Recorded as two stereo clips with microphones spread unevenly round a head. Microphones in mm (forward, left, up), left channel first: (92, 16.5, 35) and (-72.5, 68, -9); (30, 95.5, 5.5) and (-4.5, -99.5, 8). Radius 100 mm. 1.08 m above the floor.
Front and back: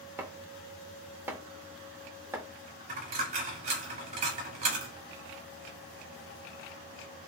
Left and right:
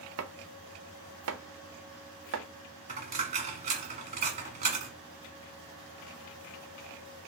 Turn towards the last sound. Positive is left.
turn(degrees=-140)